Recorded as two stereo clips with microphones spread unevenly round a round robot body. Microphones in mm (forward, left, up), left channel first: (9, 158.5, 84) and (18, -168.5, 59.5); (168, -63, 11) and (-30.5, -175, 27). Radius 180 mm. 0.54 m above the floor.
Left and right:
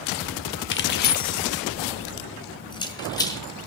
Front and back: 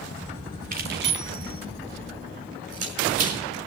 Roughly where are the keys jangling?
Behind left.